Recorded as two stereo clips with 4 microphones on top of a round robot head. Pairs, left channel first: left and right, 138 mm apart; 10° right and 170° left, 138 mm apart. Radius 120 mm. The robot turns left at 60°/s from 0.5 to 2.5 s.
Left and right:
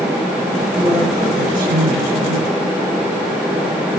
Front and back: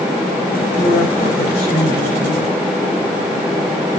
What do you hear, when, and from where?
0.8 s a woman speaking: 5° right, 7 m; by 2.5 s 110° right, 7 m